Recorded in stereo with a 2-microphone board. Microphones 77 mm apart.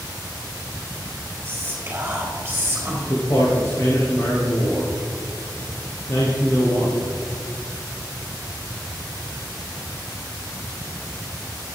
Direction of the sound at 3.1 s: 45° left (ahead or behind).